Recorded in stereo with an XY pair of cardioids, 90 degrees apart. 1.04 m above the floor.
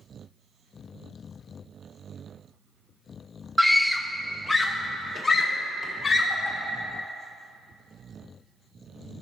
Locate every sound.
3.6 s a scream: 10° right, 0.6 m; by 6.6 s 30° left, 2.5 m